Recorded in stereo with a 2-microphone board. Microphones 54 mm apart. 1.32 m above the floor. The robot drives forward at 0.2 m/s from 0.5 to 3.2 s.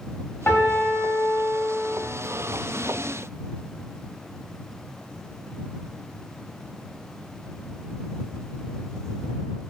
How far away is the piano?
About 0.7 m.